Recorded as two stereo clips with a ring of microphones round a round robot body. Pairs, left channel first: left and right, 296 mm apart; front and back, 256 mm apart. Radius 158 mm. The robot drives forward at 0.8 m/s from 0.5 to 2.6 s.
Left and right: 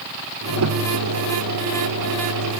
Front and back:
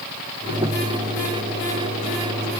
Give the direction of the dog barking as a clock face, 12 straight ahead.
I don't hear a dog barking.